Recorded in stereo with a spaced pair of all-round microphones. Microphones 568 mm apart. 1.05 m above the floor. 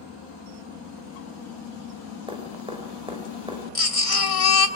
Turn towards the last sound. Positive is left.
turn(degrees=70)  # may be behind; listen again after turning